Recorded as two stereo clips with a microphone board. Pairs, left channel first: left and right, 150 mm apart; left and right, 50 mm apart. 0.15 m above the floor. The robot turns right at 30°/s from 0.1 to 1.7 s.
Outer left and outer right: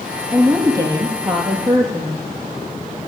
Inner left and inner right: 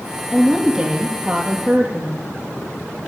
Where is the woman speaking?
175° right, 4.5 m; by 2.2 s 130° right, 4.5 m.